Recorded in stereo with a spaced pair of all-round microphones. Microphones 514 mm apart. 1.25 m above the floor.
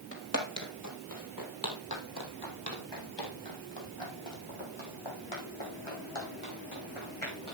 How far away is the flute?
I don't hear a flute.